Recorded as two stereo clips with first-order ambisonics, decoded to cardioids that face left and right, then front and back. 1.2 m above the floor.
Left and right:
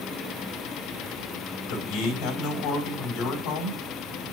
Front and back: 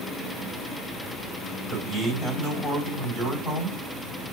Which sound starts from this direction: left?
A man speaking, at 1.7 s.